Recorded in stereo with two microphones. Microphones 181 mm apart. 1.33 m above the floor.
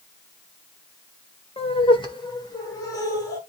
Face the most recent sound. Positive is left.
turn(degrees=20)  # may be behind; listen again after turning